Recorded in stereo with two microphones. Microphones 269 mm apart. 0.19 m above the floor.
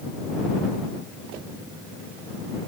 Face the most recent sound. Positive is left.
No sound to turn to.